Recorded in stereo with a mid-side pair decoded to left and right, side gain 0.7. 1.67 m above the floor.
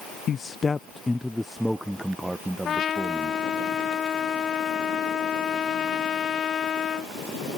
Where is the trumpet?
35° left.